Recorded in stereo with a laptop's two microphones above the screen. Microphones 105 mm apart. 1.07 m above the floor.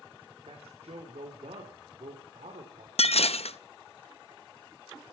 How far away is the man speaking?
About 3 m.